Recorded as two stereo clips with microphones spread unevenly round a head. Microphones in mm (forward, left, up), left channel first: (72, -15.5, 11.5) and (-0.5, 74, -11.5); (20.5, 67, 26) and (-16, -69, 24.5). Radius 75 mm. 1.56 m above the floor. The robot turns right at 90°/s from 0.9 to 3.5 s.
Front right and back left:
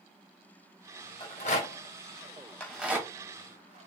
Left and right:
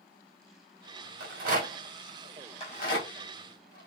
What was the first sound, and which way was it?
A rattle, 100° right.